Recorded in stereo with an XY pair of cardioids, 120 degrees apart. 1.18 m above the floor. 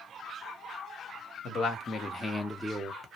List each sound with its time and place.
1.4 s a man speaking: 60° left, 1.3 m; by 3.1 s 20° right, 1.0 m